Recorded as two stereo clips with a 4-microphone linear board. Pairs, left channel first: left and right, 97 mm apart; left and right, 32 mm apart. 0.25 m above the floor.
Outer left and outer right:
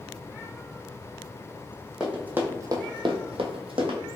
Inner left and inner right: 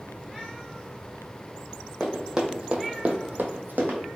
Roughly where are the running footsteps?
Centre.